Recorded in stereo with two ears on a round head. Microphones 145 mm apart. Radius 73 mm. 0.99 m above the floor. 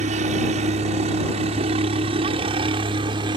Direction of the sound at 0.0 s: 45° right (ahead or behind).